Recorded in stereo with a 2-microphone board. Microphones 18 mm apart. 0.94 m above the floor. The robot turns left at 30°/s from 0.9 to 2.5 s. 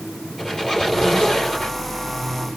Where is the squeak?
25° left (ahead or behind), 3.5 m; by 1.8 s 50° left (ahead or behind), 3.5 m.